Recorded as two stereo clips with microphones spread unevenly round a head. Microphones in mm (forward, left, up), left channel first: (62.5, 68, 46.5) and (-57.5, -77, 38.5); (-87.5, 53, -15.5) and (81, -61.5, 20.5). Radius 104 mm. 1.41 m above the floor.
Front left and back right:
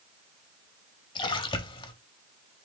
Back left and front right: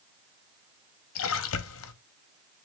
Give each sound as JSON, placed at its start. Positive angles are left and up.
{"t": 1.1, "sound": "a splash", "azimuth_deg": 115, "distance_m": 0.7}